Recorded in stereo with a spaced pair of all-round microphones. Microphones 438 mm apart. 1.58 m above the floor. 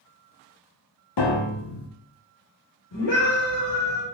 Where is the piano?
65° left (ahead or behind), 0.6 m.